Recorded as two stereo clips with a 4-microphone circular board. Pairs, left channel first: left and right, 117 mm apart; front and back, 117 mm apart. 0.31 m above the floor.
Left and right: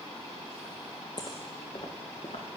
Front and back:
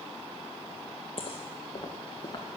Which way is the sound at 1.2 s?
40° left.